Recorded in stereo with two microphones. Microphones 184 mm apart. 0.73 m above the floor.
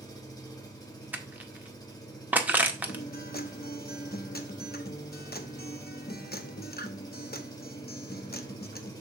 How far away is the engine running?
About 1.7 m.